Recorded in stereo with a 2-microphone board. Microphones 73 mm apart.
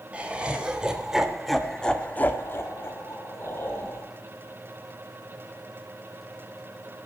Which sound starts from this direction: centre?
Laughter, at 0.1 s.